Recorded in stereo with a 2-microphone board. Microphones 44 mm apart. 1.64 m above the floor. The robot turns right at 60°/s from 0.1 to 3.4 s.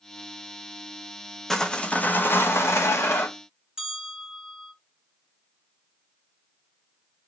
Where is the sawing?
10° left, 0.7 m; by 3.3 s 115° left, 0.7 m.